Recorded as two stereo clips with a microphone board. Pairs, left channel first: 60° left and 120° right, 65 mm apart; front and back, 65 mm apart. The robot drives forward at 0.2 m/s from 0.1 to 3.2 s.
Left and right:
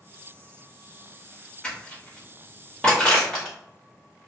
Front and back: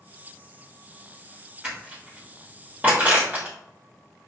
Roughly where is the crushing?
Behind left.